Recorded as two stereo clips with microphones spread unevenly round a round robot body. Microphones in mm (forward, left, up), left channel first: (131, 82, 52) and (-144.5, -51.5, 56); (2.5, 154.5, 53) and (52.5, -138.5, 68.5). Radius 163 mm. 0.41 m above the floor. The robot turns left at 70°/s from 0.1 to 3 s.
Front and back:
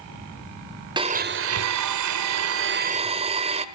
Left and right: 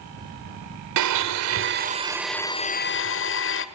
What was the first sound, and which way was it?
A blender, 80° right.